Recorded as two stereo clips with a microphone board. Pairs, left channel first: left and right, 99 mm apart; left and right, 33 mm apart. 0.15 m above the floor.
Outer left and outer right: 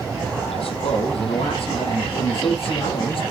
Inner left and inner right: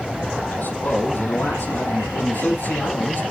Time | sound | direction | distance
0.5 | a man speaking | 75° left (ahead or behind) | 4.5 m